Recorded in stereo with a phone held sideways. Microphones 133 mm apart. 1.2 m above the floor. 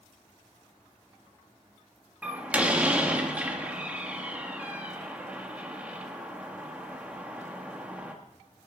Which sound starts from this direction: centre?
A door slam, at 2.2 s.